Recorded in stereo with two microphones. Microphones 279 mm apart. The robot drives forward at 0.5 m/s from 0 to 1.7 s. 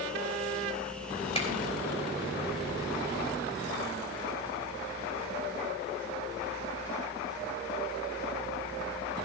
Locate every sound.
1.4 s a finger snap: 20° left (ahead or behind), 3 m